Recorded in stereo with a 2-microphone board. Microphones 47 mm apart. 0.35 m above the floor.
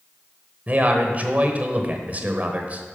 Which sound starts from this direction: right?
A man speaking, at 0.7 s.